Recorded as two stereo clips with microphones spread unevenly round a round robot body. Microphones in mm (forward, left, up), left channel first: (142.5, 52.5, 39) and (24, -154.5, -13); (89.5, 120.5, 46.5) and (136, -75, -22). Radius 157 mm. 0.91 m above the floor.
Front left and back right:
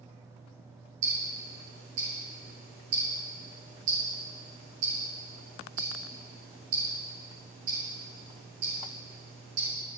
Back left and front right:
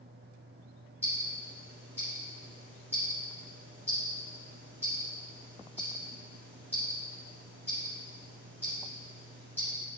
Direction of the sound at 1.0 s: 165° right.